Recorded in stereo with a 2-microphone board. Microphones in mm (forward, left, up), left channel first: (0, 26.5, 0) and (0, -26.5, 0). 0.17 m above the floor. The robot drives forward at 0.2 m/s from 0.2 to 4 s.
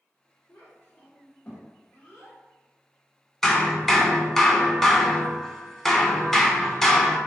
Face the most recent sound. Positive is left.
turn(degrees=10)  # may be behind; listen again after turning